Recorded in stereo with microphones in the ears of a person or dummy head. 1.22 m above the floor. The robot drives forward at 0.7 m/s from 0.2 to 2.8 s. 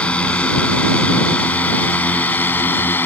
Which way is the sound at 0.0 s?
5° left (ahead or behind).